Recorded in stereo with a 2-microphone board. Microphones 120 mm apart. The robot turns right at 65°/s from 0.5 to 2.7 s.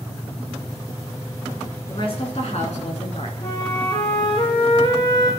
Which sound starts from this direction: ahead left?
A woman speaking, at 1.9 s.